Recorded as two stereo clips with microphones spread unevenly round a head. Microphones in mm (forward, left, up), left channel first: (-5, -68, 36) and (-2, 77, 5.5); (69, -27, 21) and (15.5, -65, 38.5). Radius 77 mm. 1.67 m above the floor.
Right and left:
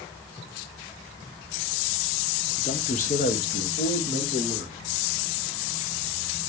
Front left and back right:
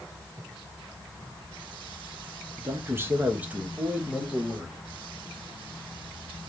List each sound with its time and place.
2.6 s a man speaking: 145° right, 0.7 m; by 4.8 s 70° right, 2 m